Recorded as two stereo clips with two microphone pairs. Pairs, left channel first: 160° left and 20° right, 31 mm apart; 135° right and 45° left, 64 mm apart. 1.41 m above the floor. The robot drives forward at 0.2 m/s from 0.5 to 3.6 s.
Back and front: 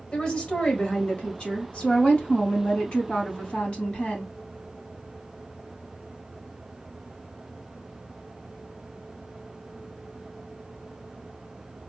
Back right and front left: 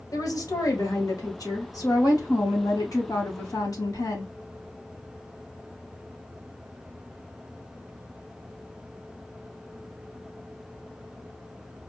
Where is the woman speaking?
155° right, 2 m; by 4.3 s 160° right, 2.5 m.